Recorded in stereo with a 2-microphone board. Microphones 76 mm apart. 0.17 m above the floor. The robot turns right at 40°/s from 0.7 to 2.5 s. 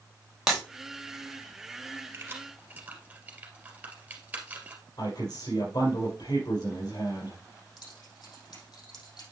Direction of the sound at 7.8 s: 70° left (ahead or behind).